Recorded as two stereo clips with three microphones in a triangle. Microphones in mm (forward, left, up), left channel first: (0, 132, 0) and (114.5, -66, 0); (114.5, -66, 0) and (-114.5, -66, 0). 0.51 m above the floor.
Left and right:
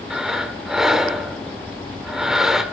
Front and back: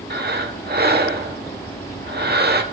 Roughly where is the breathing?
Behind right.